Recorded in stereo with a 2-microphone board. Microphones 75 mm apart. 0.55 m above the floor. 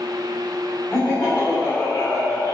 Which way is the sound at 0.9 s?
25° left (ahead or behind).